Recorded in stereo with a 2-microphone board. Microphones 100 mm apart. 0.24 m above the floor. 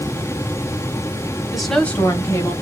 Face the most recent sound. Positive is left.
turn(degrees=40)  # may be behind; listen again after turning